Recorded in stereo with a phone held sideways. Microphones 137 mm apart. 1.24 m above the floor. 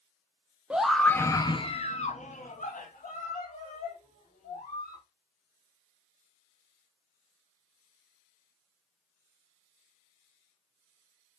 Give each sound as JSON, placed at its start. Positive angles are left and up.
{"t": 0.7, "sound": "a scream", "side_deg": -10, "distance_m": 0.6}